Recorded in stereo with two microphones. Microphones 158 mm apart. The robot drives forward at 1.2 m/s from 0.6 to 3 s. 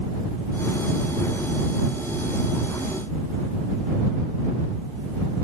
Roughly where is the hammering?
I don't hear hammering.